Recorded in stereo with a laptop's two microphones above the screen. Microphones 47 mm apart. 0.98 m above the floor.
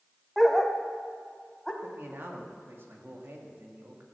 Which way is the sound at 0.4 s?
5° right (ahead or behind).